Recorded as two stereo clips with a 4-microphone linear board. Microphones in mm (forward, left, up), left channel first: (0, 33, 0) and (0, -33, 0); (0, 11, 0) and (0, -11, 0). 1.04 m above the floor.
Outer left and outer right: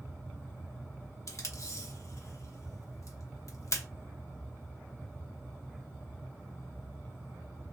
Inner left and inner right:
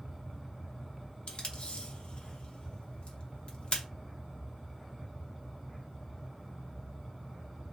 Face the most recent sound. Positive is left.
turn(degrees=55)  # may be behind; listen again after turning